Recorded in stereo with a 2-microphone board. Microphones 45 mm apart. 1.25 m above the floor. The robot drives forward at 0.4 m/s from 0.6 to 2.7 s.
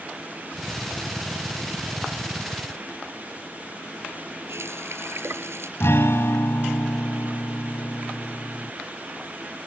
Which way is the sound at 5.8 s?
70° left (ahead or behind).